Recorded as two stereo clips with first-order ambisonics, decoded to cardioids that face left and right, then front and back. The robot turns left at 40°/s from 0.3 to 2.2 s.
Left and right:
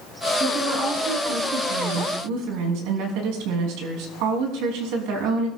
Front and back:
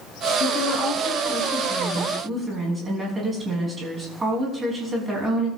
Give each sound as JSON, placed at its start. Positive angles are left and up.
{"t": 0.4, "sound": "a woman speaking", "azimuth_deg": -30, "distance_m": 6.0}